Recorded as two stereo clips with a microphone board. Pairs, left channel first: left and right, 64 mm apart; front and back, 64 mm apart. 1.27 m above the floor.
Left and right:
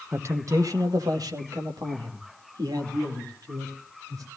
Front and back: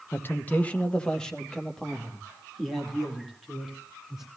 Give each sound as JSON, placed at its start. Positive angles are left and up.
{"t": 0.1, "sound": "a man speaking", "azimuth_deg": -50, "distance_m": 1.0}